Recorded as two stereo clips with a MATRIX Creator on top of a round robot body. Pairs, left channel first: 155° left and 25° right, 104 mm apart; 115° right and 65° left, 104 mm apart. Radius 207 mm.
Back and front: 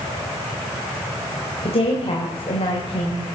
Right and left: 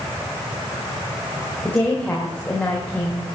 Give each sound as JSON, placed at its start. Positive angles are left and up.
{"t": 1.6, "sound": "a woman speaking", "azimuth_deg": 170, "distance_m": 3.0}